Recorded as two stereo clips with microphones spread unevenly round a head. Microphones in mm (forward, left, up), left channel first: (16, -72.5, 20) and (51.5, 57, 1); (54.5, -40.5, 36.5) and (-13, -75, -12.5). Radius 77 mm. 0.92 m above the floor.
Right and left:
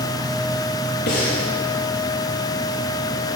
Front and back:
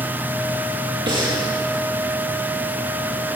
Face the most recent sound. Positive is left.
turn(degrees=-130)